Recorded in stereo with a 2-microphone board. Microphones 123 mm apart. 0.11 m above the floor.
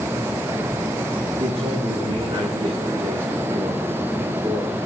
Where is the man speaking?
45° right (ahead or behind), 7.5 m; by 4.8 s 40° right (ahead or behind), 5.5 m.